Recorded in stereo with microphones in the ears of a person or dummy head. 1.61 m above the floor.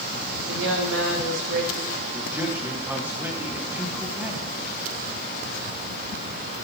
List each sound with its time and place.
0.5 s a woman speaking: 90° right, 2.5 m
2.1 s a man speaking: 5° right (ahead or behind), 1.7 m